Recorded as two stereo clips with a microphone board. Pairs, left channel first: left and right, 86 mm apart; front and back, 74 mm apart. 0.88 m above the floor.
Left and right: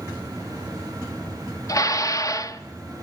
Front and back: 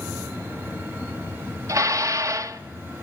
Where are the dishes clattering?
140° left, 0.9 m.